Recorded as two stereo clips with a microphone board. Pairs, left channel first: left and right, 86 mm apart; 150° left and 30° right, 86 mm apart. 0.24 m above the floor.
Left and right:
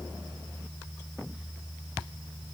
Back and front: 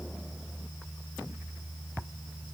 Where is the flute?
No flute in this recording.